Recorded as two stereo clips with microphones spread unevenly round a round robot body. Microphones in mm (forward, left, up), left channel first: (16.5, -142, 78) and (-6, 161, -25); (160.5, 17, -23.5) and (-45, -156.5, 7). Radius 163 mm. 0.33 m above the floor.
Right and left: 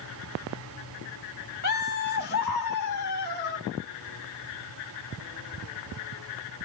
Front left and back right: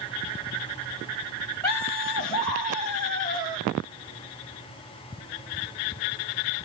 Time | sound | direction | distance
1.6 | laughter | 25° right | 1.4 m